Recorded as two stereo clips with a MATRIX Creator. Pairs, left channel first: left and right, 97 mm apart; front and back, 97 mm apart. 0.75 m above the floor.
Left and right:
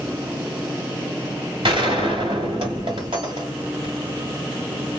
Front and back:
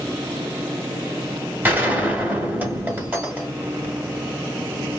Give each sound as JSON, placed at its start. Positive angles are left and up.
{"t": 1.6, "sound": "a gunshot", "azimuth_deg": -110, "distance_m": 1.8}